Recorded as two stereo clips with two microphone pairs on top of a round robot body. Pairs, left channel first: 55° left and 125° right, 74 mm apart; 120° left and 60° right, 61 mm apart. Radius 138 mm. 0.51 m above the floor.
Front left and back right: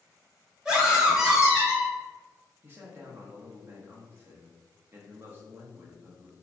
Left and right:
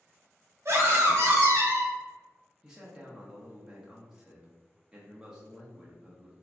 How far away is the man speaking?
About 0.7 m.